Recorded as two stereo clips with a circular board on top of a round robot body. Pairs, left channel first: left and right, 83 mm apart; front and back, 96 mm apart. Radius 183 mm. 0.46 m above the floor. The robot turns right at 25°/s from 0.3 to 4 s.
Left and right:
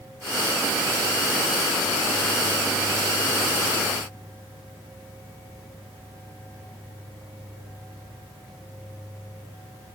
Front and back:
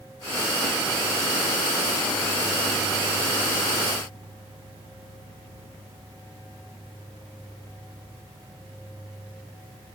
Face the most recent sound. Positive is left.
No sound to turn to.